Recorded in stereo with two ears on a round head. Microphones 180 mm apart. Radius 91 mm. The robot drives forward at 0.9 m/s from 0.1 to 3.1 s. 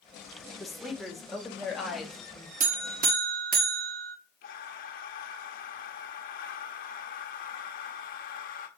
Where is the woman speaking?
Centre (ahead or behind), 1.4 m.